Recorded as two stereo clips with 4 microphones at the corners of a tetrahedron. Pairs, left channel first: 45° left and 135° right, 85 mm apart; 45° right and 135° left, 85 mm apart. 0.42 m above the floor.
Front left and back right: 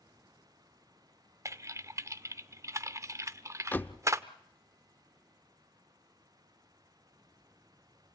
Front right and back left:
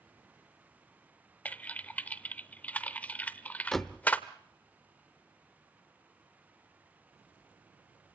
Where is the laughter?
No laughter in this recording.